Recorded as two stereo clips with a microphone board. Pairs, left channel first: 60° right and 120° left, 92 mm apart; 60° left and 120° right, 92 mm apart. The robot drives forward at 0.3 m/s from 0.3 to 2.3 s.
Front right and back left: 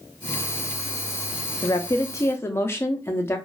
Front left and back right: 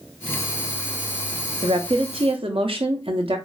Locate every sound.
1.6 s a woman speaking: 105° right, 0.6 m; by 3.4 s 125° right, 0.7 m